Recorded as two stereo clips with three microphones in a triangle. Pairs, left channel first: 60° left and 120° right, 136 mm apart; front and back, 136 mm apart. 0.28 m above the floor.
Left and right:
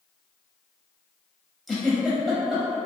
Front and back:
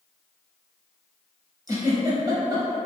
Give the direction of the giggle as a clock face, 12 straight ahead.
7 o'clock.